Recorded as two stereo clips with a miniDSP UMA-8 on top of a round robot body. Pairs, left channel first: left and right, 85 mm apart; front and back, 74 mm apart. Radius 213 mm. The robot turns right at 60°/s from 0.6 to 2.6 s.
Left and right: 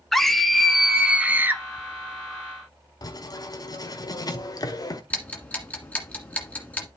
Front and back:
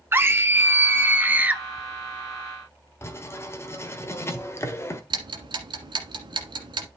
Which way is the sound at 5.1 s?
165° left.